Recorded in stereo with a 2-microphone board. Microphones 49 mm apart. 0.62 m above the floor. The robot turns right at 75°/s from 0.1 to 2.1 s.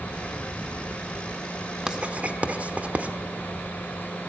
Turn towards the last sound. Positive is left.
turn(degrees=-30)  # may be behind; listen again after turning